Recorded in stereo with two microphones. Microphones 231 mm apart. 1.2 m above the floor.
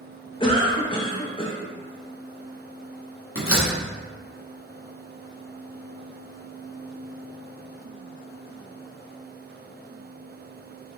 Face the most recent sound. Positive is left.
turn(degrees=65)  # may be behind; listen again after turning